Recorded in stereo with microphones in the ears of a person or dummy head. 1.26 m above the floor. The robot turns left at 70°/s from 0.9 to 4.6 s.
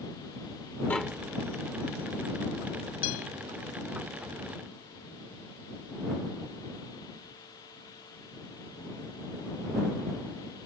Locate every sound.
0.9 s tapping: 10° left (ahead or behind); by 1.3 s 15° right (ahead or behind)
3.0 s a guitar: 85° left; by 3.3 s 75° left (ahead or behind)